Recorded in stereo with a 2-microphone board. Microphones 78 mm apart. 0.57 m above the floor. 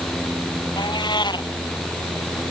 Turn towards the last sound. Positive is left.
turn(degrees=70)  # may be behind; listen again after turning